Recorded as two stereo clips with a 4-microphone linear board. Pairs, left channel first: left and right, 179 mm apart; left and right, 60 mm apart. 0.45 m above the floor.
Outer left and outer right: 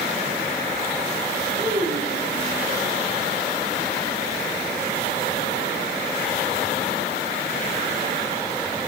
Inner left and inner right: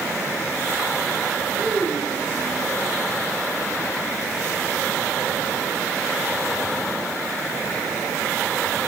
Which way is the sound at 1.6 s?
75° right (ahead or behind).